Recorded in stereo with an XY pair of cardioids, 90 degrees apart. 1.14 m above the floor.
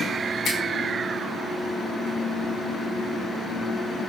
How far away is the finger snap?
About 7.5 m.